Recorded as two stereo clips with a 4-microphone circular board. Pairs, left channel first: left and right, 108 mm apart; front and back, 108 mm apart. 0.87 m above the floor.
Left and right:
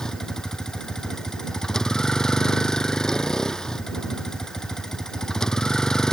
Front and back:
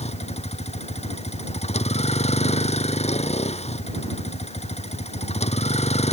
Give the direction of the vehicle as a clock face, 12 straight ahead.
12 o'clock.